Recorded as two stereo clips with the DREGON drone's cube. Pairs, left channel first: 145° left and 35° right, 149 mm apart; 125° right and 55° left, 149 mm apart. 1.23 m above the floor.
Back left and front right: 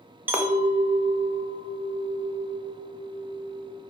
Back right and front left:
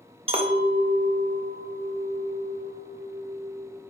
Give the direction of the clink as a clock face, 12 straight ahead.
11 o'clock.